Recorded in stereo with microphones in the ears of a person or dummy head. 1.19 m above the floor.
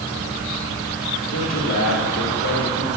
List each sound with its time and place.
1.3 s a man speaking: 60° left (ahead or behind), 2 m; by 2.9 s 80° left, 3 m